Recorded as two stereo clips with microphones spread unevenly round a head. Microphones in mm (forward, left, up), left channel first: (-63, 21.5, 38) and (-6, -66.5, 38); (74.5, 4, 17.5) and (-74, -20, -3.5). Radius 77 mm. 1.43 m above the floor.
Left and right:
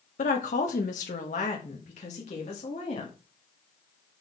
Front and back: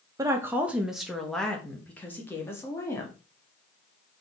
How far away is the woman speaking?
About 1.0 m.